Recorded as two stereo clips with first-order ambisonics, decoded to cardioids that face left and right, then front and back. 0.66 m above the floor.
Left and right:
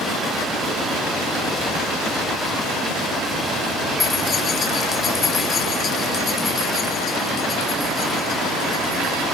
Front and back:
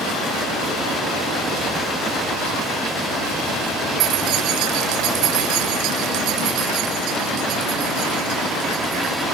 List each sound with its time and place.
4.0 s keys jangling: 155° left